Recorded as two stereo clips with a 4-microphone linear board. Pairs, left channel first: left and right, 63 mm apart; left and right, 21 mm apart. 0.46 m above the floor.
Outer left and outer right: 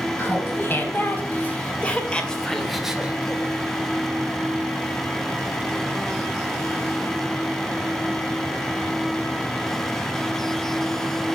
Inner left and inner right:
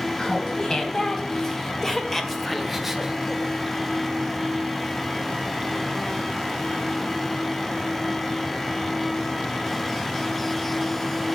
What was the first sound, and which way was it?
Laughter, 35° left (ahead or behind).